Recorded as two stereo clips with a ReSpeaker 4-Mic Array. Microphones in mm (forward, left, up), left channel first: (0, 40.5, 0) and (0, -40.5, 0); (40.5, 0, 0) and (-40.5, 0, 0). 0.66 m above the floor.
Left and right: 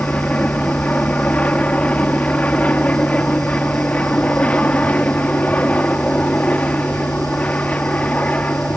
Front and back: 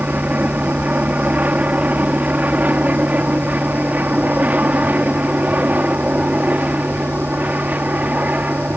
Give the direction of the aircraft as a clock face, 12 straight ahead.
7 o'clock.